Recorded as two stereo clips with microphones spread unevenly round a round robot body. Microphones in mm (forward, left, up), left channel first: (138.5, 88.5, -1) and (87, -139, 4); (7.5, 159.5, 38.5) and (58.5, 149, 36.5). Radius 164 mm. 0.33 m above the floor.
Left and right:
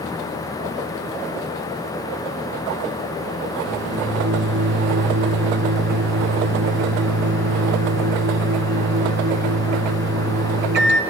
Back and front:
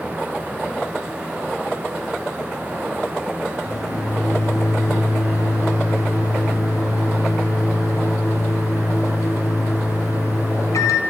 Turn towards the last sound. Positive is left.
turn(degrees=-160)